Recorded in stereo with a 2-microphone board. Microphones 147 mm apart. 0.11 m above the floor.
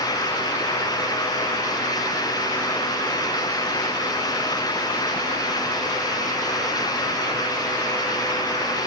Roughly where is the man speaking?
No man speaking in this recording.